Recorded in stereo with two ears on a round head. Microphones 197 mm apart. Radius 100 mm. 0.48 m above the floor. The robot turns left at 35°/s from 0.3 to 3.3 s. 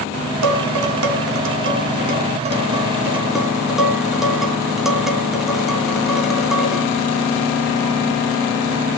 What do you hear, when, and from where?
0.4 s dishes clattering: 75° right (ahead or behind), 3.5 m; by 6.8 s centre (ahead or behind), 3.5 m